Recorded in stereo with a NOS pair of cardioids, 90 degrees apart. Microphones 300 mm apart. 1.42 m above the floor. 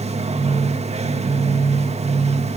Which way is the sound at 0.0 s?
20° right.